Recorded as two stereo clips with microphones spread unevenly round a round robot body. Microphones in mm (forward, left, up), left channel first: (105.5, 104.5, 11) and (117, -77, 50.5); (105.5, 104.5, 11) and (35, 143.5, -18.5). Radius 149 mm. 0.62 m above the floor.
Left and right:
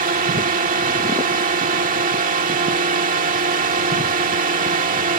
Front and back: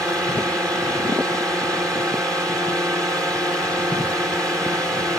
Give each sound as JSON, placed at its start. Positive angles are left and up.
{"t": 0.0, "sound": "a drone", "azimuth_deg": -135}